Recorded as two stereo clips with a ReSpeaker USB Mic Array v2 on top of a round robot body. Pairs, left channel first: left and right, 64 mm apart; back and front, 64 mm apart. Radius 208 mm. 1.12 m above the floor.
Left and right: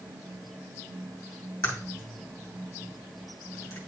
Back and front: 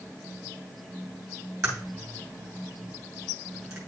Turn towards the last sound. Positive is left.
turn(degrees=40)